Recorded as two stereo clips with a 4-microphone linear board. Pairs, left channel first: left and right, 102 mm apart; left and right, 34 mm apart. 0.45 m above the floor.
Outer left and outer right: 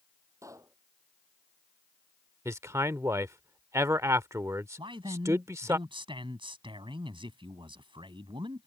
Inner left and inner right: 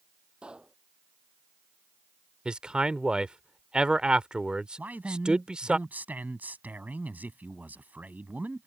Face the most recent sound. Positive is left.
turn(degrees=-55)  # may be behind; listen again after turning